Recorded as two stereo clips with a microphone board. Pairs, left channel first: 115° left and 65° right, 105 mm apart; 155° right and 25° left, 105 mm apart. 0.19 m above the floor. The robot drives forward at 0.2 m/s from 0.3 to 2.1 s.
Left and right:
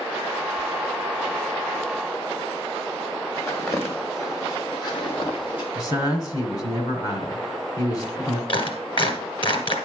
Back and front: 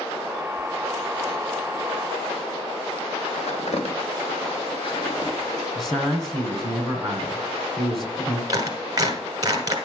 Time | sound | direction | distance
3.4 | footsteps | 175° right | 2.5 m
5.8 | a man speaking | 115° left | 1.8 m
8.5 | a clap | 75° left | 2 m